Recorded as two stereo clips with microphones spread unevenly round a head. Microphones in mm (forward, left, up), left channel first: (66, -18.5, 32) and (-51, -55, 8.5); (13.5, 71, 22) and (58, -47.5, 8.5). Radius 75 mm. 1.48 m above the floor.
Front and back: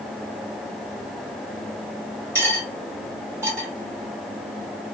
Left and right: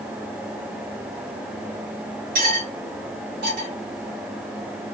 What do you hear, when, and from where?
2.4 s cutlery clinking: 90° right, 1.5 m